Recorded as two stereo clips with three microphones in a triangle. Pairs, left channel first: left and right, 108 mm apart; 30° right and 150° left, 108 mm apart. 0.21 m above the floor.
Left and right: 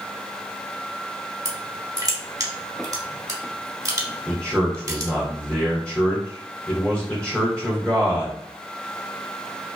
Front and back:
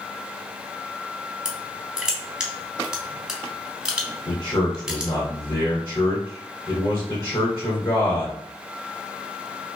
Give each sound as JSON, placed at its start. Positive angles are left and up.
{"t": 1.4, "sound": "crushing", "azimuth_deg": -130, "distance_m": 0.7}
{"t": 4.3, "sound": "a man speaking", "azimuth_deg": 15, "distance_m": 1.4}